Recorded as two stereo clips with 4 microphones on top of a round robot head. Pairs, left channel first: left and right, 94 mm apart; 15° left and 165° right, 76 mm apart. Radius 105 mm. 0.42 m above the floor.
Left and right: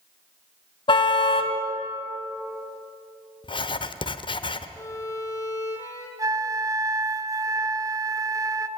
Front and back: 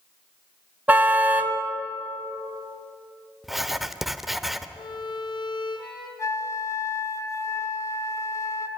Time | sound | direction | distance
0.9 | a car horn | 125° left | 2 m
3.4 | writing | 105° left | 1.2 m
4.8 | a violin | 35° left | 4.5 m
6.2 | a flute | 40° right | 1.2 m